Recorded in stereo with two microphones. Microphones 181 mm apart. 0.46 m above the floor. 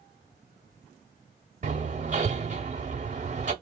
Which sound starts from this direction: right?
Hammering, at 1.6 s.